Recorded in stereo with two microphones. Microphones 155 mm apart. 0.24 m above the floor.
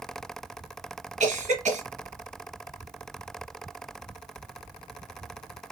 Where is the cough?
45° right (ahead or behind), 1.6 m.